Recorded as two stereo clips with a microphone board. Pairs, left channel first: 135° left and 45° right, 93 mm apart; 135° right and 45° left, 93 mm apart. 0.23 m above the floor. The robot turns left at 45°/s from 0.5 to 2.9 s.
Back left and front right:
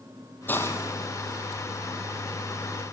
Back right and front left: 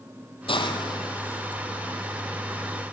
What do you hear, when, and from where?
0.5 s a hiss: 155° right, 2.5 m; by 2.9 s 95° left, 2.5 m